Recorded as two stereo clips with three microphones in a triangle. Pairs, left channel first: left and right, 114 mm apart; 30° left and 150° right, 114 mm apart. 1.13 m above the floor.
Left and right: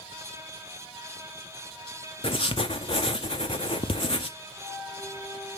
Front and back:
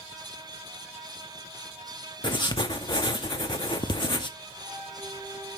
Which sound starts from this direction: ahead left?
Writing, at 2.2 s.